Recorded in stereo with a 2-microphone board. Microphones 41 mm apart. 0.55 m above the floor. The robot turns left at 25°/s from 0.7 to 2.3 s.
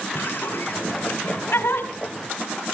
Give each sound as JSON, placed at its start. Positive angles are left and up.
{"t": 0.1, "sound": "laughter", "side_deg": 60, "distance_m": 3.0}